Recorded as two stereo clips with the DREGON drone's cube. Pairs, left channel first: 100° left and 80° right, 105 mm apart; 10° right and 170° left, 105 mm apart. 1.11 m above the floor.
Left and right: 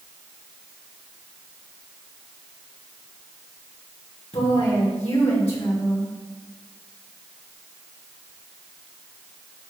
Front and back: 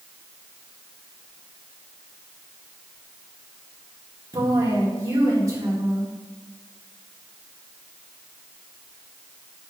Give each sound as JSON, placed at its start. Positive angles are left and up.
{"t": 4.3, "sound": "a woman speaking", "azimuth_deg": 115, "distance_m": 3.0}